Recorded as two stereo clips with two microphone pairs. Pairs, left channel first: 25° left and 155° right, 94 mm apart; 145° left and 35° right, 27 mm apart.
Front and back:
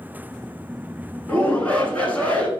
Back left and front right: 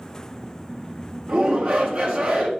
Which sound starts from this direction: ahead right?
A shout, at 1.3 s.